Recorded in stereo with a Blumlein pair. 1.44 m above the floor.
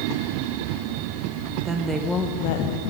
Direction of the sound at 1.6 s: 20° right.